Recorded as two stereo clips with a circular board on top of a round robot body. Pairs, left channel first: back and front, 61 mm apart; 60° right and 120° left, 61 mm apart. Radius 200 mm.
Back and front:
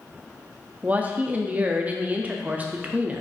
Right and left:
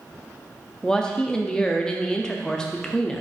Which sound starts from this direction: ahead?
A woman speaking, at 0.8 s.